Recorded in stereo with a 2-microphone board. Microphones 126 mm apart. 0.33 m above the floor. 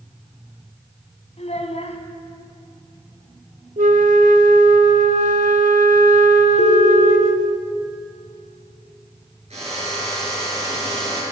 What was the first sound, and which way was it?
A child speaking, 60° left (ahead or behind).